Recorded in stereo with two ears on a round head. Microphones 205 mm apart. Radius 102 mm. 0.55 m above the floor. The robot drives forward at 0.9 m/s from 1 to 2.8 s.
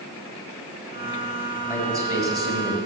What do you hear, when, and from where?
1.7 s a man speaking: 15° right (ahead or behind), 4.5 m; by 2.8 s 20° right (ahead or behind), 3.5 m